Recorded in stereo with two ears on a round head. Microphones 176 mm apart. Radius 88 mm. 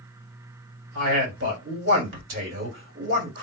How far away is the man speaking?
About 2 m.